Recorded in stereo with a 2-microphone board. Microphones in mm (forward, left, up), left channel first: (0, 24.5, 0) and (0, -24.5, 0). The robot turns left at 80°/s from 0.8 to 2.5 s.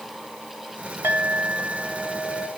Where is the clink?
70° right, 3.5 m; by 2.5 s 175° left, 3.5 m.